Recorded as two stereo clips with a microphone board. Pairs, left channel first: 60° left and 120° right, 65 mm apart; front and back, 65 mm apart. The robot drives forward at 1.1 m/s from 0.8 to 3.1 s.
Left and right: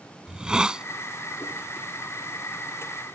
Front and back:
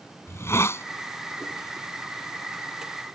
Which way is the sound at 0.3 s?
45° right.